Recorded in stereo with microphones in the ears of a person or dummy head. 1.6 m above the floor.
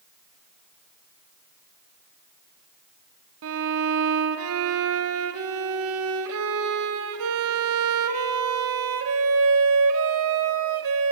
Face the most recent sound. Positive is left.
turn(degrees=-80)